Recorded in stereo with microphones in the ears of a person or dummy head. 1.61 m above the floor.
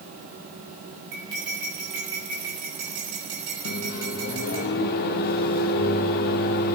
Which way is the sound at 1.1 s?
50° right (ahead or behind).